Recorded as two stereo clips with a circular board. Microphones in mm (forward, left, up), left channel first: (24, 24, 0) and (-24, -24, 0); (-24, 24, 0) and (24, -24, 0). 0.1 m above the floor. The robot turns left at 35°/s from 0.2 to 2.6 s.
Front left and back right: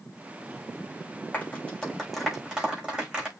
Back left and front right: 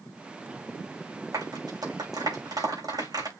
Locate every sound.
1.3 s a clap: 20° right, 6.5 m; by 3.3 s 60° right, 6.5 m